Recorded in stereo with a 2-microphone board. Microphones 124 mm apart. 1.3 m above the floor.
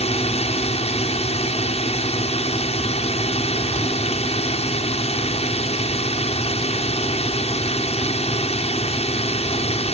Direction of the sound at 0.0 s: 55° left (ahead or behind).